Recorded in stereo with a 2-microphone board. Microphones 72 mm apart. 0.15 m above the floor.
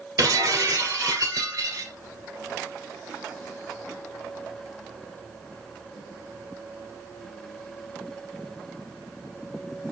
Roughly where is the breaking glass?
Right.